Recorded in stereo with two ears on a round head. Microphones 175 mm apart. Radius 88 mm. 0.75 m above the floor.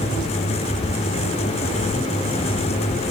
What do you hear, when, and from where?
Only background noise.